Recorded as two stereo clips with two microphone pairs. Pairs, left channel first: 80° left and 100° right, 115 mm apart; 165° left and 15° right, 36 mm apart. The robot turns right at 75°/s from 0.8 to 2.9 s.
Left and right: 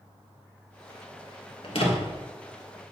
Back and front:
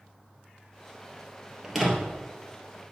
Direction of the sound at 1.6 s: 60° left.